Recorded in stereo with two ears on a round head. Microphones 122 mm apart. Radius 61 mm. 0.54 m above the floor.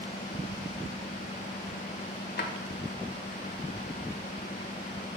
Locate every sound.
2.4 s a drawer: 70° left (ahead or behind), 1.2 m